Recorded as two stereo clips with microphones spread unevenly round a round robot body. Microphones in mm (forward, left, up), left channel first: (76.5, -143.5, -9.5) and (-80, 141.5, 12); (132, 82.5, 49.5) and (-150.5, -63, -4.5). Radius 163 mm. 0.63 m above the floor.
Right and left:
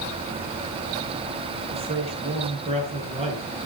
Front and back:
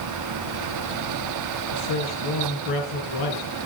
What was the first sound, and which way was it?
A man speaking, 45° left.